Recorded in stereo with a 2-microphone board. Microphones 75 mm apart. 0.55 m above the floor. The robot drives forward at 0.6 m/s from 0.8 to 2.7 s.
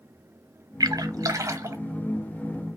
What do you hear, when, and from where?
0.8 s a splash: 55° right (ahead or behind), 0.8 m; by 1.8 s 35° right (ahead or behind), 1.1 m